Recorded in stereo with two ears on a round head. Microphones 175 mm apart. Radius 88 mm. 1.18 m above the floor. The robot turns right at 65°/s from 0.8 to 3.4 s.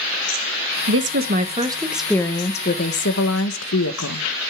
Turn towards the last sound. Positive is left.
turn(degrees=90)